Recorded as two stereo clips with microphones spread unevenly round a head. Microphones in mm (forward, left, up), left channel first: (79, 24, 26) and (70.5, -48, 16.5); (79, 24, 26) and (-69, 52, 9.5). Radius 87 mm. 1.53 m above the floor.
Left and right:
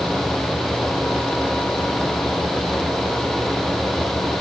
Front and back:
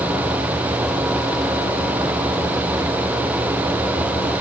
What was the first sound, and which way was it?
Only background noise.